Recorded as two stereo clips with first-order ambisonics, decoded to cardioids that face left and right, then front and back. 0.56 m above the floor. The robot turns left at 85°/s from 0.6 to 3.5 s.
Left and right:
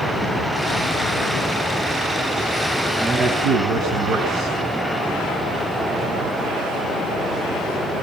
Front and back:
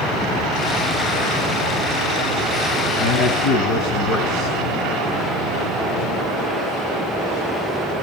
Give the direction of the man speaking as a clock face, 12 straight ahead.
12 o'clock.